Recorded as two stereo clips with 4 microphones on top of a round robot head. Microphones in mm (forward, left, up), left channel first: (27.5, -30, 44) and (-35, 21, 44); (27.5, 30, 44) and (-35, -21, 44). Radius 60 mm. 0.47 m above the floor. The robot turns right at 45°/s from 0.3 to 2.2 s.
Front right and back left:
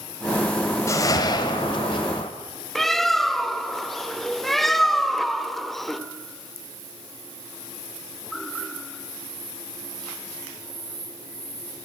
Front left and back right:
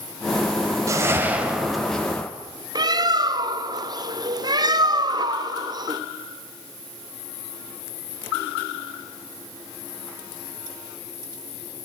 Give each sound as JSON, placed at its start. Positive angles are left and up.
{"t": 0.9, "sound": "a whoosh", "azimuth_deg": -90, "distance_m": 2.5}
{"t": 2.8, "sound": "a bird", "azimuth_deg": -125, "distance_m": 1.4}